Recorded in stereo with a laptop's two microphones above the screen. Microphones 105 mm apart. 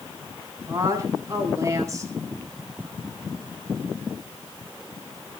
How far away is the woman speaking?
About 9.5 m.